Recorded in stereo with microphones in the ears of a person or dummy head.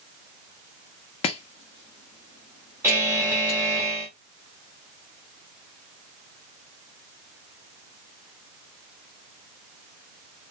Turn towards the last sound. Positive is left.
turn(degrees=-5)  # may be behind; listen again after turning